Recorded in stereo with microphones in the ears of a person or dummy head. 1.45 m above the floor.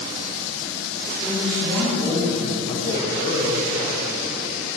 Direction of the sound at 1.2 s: 10° left (ahead or behind).